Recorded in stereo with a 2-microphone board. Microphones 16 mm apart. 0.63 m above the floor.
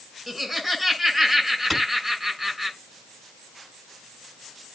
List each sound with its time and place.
0.3 s laughter: 10° right (ahead or behind), 7.5 m
1.7 s a clap: centre (ahead or behind), 6 m